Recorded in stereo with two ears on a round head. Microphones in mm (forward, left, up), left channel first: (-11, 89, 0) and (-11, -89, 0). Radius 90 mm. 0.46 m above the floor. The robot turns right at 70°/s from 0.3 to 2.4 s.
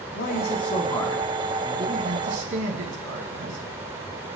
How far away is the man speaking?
About 4 m.